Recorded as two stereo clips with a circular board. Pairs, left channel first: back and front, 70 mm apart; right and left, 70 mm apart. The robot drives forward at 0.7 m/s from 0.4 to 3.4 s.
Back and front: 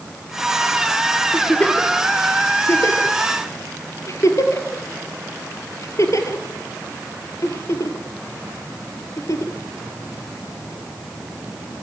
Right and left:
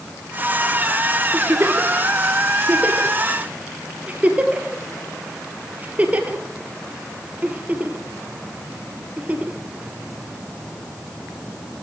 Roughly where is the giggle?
Left.